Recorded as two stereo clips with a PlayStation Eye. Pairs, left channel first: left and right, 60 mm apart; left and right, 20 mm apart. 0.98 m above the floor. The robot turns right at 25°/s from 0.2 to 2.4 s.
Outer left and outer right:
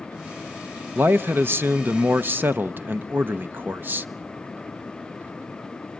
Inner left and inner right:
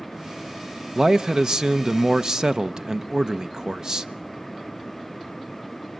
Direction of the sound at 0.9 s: 100° right.